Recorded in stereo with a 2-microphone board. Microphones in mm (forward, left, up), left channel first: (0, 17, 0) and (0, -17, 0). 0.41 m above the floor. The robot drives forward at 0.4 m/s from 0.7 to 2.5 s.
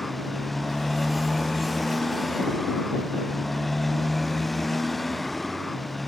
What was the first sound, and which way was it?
A motorcycle, centre (ahead or behind).